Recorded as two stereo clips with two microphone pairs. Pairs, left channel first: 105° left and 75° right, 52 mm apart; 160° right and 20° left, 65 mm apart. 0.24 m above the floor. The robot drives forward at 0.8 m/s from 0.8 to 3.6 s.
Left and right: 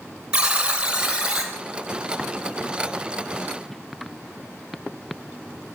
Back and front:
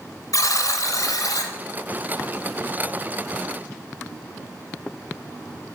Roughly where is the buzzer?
Behind right.